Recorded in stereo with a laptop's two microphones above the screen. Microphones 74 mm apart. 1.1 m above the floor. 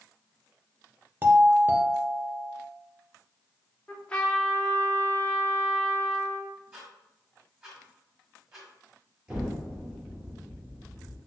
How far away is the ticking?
About 1.7 m.